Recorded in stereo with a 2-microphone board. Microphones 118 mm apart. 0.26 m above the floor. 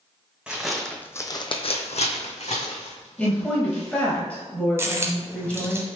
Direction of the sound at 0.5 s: 10° right (ahead or behind).